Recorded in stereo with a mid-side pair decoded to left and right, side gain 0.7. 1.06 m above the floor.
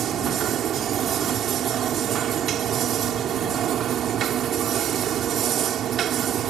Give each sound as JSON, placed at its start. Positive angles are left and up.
{"t": 0.0, "sound": "a machine running", "azimuth_deg": -45}